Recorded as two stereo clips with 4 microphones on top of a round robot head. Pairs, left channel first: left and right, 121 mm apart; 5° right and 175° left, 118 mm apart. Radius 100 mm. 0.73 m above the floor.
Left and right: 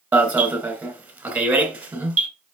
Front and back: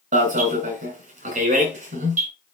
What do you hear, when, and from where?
0.1 s an alarm: 165° right, 3 m